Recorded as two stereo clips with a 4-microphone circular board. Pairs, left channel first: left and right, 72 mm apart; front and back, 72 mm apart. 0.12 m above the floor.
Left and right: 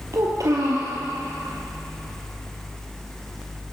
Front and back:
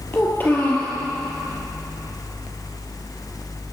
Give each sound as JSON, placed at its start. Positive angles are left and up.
{"t": 0.1, "sound": "a child speaking", "azimuth_deg": -60, "distance_m": 1.5}